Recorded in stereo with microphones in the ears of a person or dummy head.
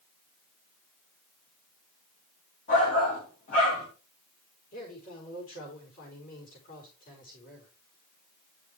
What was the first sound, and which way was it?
A shout, 40° left (ahead or behind).